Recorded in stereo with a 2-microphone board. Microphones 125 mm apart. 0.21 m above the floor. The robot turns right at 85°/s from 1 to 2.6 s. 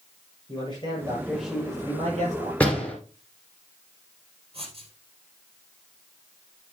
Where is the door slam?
10° left (ahead or behind), 2.5 m.